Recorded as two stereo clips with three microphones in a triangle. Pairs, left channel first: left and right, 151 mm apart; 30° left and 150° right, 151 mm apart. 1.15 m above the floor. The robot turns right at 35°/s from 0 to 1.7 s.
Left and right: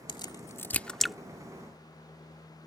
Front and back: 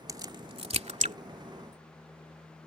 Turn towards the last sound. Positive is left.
turn(degrees=-160)